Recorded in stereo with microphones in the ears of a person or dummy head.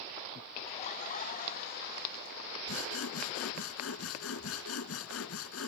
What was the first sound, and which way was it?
Laughter, 40° left (ahead or behind).